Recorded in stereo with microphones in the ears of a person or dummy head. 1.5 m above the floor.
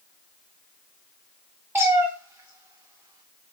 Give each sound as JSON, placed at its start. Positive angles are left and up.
{"t": 1.8, "sound": "a cat meowing", "side_deg": -15, "distance_m": 2.5}